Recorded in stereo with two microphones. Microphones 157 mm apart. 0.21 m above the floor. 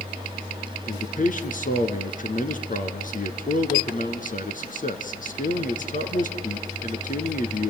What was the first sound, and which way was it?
A man speaking, 60° left (ahead or behind).